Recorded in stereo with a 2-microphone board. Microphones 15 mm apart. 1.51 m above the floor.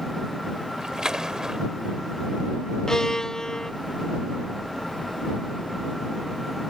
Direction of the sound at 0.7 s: 50° right (ahead or behind).